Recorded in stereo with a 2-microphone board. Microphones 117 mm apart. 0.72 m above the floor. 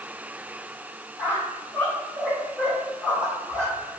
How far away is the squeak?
About 1.4 m.